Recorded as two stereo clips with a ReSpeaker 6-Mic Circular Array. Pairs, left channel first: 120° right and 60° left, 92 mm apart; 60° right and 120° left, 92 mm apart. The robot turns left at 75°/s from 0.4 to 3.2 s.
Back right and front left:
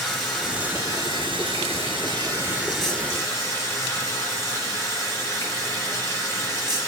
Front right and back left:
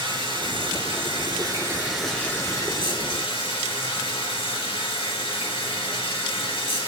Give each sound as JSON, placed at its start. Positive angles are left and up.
{"t": 0.0, "sound": "running water", "azimuth_deg": 150, "distance_m": 7.0}